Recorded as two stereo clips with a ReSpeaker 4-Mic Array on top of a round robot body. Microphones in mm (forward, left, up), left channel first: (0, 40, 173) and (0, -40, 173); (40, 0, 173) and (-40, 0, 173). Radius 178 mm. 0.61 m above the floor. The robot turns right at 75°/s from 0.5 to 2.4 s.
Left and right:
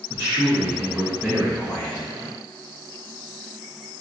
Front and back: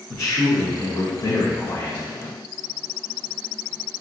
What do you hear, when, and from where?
0.1 s a man speaking: 45° right, 1.2 m; by 2.1 s 70° left, 1.2 m